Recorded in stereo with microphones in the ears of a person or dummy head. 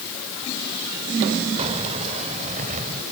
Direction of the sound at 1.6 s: 30° right (ahead or behind).